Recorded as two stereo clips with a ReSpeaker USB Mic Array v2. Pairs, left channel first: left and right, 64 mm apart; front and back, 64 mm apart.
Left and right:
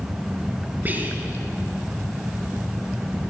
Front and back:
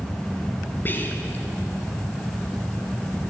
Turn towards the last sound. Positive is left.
turn(degrees=-40)